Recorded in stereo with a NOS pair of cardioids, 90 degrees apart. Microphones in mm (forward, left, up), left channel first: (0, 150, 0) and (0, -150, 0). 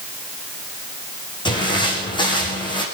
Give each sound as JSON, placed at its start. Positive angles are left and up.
{"t": 1.4, "sound": "footsteps", "azimuth_deg": 15, "distance_m": 5.0}